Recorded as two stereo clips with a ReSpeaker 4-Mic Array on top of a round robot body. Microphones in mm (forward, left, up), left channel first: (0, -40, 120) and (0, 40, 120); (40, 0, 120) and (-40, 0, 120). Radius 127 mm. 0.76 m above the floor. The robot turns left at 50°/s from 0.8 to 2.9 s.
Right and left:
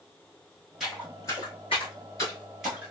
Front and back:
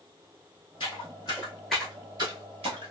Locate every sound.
0.8 s footsteps: 5° left, 1.0 m; by 2.9 s 155° left, 1.1 m